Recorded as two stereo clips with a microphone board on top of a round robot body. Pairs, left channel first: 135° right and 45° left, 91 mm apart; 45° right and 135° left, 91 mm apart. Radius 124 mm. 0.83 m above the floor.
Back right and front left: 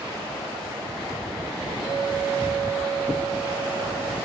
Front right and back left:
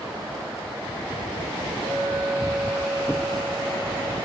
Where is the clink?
160° left, 5 m.